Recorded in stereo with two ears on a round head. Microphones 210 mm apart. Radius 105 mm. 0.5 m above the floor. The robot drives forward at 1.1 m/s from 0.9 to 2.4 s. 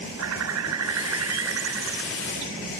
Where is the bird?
70° right (ahead or behind); by 2.5 s 55° right (ahead or behind).